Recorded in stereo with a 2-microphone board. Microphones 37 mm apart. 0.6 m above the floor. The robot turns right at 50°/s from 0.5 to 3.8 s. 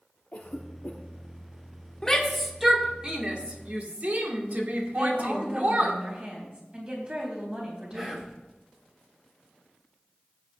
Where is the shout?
15° left (ahead or behind), 1.9 m; by 6.0 s 50° right (ahead or behind), 1.9 m.